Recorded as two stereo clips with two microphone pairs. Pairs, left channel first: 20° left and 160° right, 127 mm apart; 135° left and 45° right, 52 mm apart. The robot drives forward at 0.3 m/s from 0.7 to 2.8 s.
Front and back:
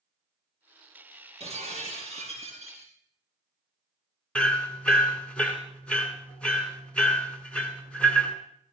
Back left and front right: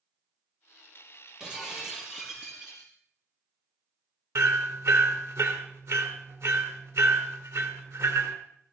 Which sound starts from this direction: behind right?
Breaking glass, at 1.4 s.